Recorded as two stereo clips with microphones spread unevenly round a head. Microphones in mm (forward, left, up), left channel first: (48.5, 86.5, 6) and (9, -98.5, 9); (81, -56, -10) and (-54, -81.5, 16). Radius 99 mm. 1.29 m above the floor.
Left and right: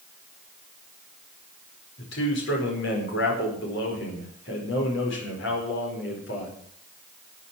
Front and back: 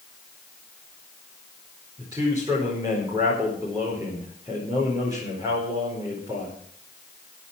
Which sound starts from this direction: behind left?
A man speaking, at 2.0 s.